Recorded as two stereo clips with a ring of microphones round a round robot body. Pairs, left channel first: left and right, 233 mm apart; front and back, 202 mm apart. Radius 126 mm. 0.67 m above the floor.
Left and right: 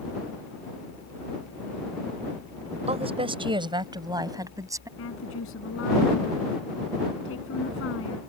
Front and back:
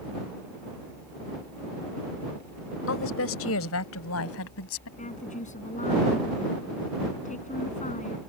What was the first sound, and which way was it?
A woman speaking, 25° right.